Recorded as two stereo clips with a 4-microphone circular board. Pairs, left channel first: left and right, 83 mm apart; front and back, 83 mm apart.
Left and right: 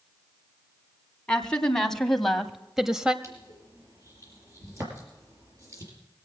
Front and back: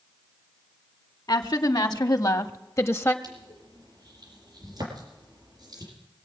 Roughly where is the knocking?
No knocking in this recording.